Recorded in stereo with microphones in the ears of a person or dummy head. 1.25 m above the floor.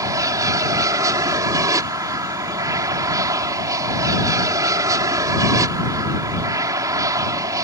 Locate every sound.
0.0 s an aircraft: 20° right (ahead or behind)